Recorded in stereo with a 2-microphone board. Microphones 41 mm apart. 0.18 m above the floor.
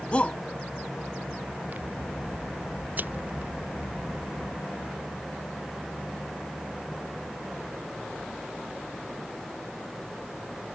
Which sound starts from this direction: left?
A shout, at 0.1 s.